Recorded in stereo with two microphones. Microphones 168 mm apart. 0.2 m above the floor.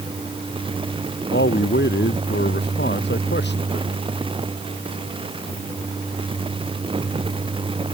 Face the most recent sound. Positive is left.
turn(degrees=80)